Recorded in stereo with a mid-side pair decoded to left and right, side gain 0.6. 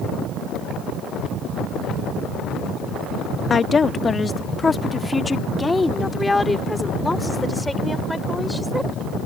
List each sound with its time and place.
3.5 s a woman speaking: 30° left; by 8.9 s 10° left